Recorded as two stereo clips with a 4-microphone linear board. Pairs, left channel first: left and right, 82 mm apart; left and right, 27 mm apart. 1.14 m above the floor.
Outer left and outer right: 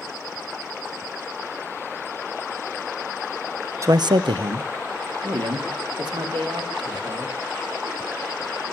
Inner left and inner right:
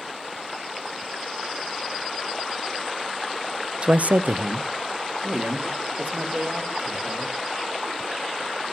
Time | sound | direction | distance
3.8 | a man speaking | 35° right (ahead or behind) | 0.6 m